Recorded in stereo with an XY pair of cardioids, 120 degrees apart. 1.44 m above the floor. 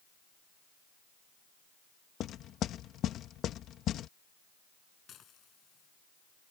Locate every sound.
2.2 s knocking: 60° left
5.1 s dishes clattering: 55° left